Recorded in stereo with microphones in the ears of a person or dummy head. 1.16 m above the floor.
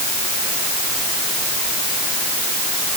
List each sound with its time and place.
Only background noise.